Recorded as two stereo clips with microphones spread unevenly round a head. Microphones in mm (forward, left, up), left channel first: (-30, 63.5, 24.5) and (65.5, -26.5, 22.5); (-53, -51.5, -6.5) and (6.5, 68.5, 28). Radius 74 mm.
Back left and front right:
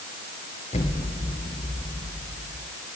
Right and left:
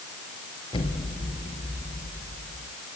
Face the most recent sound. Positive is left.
turn(degrees=-175)